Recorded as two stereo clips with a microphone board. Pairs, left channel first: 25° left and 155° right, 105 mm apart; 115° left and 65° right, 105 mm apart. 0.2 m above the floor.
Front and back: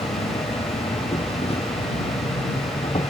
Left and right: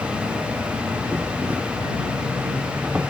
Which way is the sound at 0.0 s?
10° left.